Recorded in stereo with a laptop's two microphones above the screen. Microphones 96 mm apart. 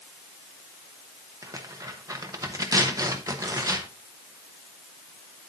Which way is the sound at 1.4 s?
35° right (ahead or behind).